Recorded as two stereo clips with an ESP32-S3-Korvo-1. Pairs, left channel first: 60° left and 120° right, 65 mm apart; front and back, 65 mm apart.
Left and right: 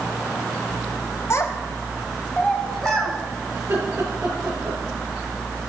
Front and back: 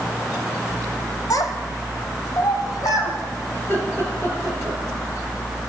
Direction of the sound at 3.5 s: 55° right.